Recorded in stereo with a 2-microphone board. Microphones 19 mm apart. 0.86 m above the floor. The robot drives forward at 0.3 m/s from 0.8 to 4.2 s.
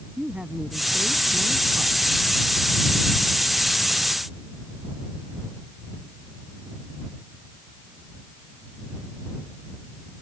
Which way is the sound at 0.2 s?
75° right (ahead or behind).